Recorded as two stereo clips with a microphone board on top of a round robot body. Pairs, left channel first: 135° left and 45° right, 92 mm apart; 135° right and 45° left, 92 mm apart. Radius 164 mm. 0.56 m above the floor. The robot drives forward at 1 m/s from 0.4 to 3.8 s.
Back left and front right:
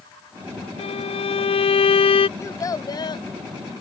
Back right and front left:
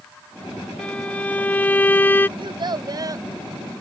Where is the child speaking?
75° left; by 3.3 s 100° left.